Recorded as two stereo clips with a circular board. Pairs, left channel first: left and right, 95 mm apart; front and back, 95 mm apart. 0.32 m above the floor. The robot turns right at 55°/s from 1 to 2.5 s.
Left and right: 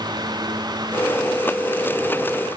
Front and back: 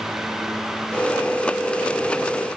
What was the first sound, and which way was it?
Only background noise.